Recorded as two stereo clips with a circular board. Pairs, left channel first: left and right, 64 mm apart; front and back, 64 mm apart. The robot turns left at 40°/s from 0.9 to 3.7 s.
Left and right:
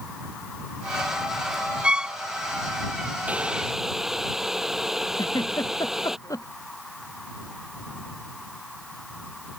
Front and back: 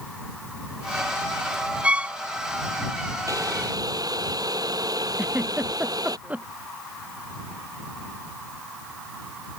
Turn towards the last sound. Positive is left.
turn(degrees=110)